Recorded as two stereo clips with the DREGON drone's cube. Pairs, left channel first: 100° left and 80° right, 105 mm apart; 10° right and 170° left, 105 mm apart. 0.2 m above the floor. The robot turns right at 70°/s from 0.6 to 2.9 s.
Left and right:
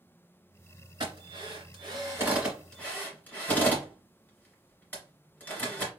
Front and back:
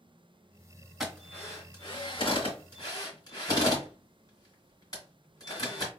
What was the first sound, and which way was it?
A drill, 105° right.